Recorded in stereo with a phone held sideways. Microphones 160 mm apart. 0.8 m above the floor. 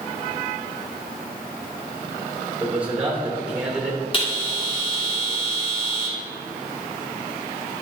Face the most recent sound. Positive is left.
turn(degrees=35)  # may be behind; listen again after turning